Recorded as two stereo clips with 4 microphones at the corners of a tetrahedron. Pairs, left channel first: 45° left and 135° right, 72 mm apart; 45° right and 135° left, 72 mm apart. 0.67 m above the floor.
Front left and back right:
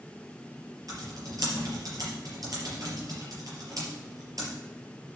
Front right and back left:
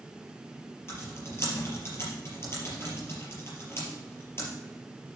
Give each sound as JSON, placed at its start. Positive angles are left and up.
{"t": 0.9, "sound": "typing on a keyboard", "azimuth_deg": -100, "distance_m": 4.5}